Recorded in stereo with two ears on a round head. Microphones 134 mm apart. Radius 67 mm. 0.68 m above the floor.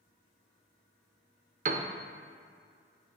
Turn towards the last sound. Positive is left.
turn(degrees=-55)  # may be behind; listen again after turning